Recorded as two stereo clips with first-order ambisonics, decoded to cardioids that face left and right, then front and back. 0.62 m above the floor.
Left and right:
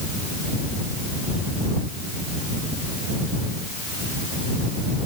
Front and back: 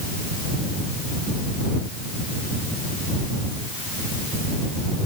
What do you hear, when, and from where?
Only background noise.